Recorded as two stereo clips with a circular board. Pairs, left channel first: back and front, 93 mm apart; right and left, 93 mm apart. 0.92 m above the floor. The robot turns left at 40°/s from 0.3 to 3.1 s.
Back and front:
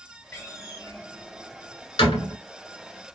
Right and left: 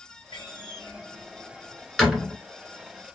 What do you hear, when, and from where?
0.3 s a door slam: 110° right, 2 m; by 2.4 s 170° left, 2 m